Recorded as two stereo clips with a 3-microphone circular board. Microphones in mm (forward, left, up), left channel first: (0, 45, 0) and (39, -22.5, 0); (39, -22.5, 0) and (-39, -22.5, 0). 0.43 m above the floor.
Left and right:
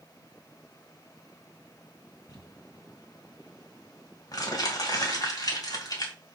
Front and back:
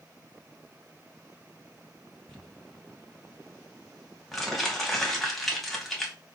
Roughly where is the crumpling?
Left.